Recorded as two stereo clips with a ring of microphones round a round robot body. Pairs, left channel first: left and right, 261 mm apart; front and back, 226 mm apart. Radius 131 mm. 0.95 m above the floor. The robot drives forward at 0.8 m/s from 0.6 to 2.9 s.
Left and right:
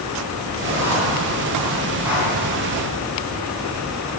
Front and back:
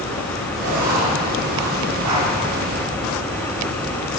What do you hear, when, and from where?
0.6 s writing: 170° right, 6 m; by 2.3 s 175° right, 7.5 m